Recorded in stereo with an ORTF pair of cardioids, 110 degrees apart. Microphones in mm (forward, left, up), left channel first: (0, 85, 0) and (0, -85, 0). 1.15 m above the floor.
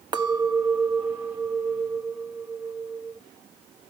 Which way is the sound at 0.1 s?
25° right.